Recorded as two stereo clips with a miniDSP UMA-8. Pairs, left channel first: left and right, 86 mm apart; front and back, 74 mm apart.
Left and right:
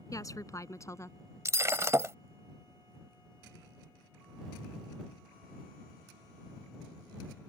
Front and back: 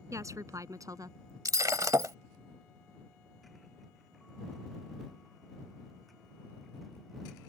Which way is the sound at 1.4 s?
145° right.